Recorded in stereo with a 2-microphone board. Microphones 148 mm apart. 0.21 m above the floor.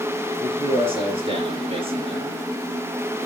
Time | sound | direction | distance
0.4 | a man speaking | 40° right (ahead or behind) | 3.5 m